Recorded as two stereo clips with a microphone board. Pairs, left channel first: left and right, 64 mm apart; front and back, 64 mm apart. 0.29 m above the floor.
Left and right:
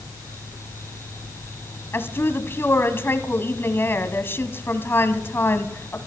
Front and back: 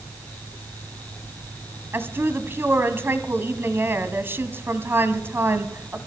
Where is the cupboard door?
No cupboard door in this recording.